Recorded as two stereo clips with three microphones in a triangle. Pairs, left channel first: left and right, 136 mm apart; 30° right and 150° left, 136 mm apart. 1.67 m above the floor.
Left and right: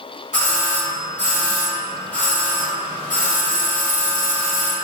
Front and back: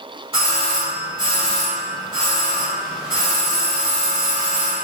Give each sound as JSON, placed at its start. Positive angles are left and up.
{"t": 0.3, "sound": "a doorbell", "azimuth_deg": 105, "distance_m": 1.3}